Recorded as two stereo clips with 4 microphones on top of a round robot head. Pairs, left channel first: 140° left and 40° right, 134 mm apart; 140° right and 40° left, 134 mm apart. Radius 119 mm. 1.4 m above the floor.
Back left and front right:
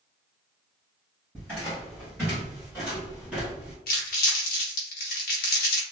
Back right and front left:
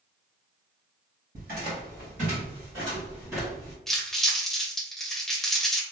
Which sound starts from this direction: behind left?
Crumpling, at 3.9 s.